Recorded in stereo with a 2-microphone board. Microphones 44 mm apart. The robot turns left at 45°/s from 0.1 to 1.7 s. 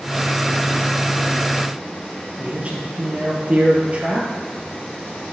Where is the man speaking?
30° right (ahead or behind), 2.5 m.